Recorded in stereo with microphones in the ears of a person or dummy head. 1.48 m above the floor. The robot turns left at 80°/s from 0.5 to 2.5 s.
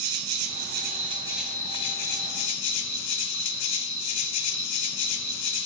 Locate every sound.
0.0 s an insect: 105° right, 0.8 m; by 5.7 s 95° left, 0.8 m